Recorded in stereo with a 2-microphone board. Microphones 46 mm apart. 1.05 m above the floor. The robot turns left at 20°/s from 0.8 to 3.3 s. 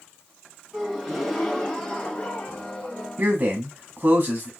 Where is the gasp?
175° right, 1.7 m; by 3.1 s 140° left, 1.7 m.